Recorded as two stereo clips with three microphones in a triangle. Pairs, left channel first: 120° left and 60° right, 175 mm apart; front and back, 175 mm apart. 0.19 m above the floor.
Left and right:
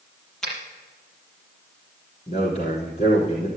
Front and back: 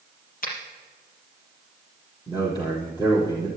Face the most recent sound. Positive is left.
turn(degrees=70)